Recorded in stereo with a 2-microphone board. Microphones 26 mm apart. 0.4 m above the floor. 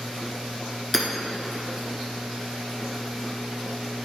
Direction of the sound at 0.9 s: 5° left (ahead or behind).